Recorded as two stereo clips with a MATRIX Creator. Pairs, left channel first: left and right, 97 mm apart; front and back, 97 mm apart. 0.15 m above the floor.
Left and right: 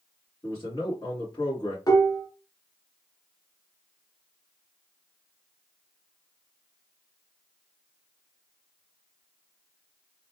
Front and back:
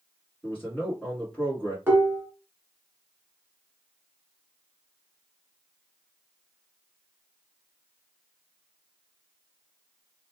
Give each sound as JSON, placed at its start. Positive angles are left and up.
{"t": 0.4, "sound": "a man speaking", "azimuth_deg": 80, "distance_m": 2.0}
{"t": 1.9, "sound": "dishes clattering", "azimuth_deg": 120, "distance_m": 1.4}